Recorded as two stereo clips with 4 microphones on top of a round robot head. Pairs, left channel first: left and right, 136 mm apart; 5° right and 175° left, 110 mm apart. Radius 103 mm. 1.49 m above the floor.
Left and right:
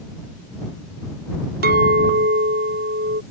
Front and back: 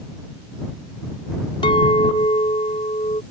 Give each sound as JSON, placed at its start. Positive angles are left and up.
{"t": 1.6, "sound": "a clink", "azimuth_deg": -65}